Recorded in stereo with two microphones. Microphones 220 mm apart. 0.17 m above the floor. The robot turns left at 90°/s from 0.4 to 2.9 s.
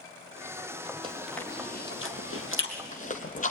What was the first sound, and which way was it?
Chewing, 25° right (ahead or behind).